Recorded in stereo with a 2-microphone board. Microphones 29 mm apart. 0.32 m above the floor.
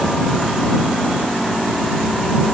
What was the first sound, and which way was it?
Only background noise.